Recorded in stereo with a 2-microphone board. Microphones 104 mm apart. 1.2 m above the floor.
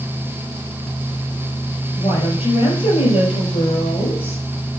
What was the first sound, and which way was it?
A woman speaking, 65° left (ahead or behind).